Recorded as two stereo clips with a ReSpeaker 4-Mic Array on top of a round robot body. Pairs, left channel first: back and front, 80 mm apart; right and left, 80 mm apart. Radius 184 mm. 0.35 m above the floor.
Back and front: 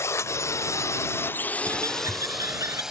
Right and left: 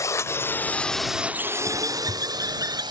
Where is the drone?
130° right; by 2.9 s 80° left.